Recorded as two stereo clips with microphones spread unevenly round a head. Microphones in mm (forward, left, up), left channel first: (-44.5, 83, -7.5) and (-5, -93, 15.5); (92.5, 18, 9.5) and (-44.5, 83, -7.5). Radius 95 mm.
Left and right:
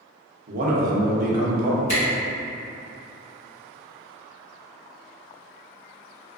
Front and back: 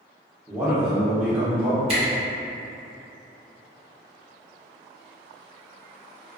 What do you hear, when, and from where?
0.5 s a man speaking: 120° right, 0.6 m
1.9 s a camera shutter: 125° left, 1.6 m